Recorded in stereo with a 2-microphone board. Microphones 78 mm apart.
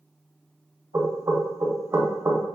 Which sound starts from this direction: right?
Knocking, at 0.9 s.